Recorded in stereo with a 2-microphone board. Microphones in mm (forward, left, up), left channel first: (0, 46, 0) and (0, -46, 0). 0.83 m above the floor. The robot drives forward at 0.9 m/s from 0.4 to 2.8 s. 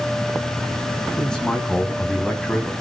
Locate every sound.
1.2 s a man speaking: 10° left (ahead or behind), 8.5 m